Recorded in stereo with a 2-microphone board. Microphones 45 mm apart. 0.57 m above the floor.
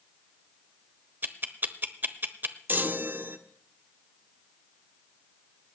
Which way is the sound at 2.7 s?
45° right (ahead or behind).